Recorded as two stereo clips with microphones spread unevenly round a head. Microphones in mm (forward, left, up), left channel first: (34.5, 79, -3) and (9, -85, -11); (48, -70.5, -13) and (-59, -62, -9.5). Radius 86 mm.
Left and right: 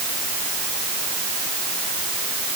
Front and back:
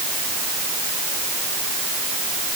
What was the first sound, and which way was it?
Only background noise.